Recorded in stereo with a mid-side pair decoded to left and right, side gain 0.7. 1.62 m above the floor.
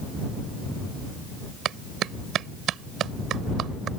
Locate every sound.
1.6 s a clap: 45° right